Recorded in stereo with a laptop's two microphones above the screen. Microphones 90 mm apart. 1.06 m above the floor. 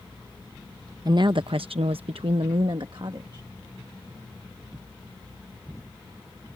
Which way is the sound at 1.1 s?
45° right (ahead or behind).